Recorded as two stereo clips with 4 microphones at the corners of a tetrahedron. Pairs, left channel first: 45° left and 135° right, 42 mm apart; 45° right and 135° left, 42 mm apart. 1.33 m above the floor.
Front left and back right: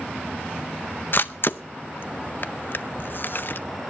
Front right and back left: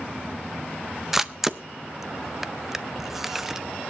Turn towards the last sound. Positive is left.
turn(degrees=55)